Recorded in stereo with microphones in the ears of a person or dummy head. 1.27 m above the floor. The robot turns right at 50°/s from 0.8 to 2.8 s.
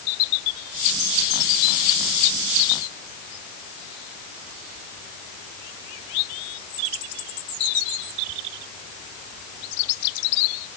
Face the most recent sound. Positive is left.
No sound to turn to.